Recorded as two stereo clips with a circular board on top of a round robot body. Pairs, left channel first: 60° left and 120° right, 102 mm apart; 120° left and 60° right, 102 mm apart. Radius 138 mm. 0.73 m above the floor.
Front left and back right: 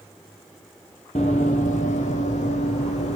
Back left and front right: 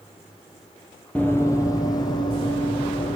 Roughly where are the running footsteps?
Ahead left.